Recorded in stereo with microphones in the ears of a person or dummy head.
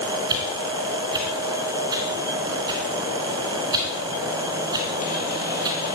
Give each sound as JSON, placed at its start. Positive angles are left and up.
{"t": 0.3, "sound": "a whoosh", "side_deg": -20, "distance_m": 3.0}